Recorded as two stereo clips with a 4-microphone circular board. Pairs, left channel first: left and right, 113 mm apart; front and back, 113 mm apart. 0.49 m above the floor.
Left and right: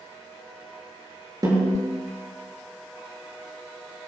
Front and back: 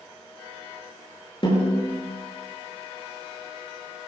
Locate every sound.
1.4 s a snare drum: 35° right, 7.5 m